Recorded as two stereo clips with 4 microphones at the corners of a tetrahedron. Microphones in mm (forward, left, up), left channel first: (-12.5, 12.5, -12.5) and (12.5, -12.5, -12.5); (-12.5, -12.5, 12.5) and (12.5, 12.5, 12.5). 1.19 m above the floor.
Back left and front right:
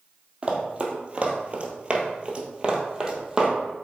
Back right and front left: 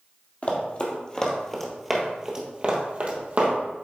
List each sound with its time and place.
0.4 s running footsteps: 95° right, 1.7 m; by 3.5 s 25° left, 1.9 m